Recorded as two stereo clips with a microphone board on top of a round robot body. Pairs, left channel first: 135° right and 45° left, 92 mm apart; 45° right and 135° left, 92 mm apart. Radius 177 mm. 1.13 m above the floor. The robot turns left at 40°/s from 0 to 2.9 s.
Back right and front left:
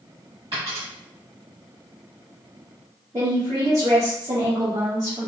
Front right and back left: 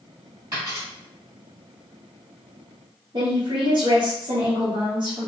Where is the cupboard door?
No cupboard door in this recording.